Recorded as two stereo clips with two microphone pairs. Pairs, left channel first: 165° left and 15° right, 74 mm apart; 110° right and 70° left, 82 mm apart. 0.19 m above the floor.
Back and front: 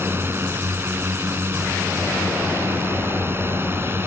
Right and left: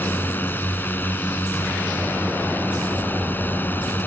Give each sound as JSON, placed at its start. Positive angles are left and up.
{"t": 0.0, "sound": "a drone", "azimuth_deg": -55}